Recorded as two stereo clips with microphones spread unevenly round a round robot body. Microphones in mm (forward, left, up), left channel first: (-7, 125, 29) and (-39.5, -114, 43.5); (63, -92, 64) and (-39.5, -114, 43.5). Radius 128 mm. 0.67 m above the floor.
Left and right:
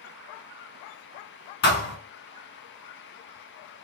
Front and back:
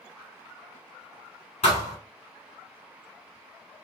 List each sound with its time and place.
1.6 s a thud: 30° left, 1.5 m